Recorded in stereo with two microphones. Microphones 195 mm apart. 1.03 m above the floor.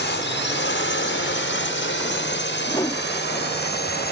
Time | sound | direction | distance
0.0 | a drone | 65° left (ahead or behind) | ?
2.7 | a whoosh | 20° left (ahead or behind) | ?